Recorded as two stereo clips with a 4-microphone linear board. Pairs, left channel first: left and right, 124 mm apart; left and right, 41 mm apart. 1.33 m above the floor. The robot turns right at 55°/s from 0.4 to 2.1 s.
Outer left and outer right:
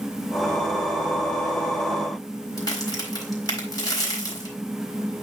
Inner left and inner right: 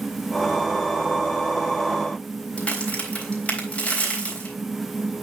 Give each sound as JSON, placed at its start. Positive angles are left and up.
{"t": 2.6, "sound": "a crack", "side_deg": 30, "distance_m": 3.0}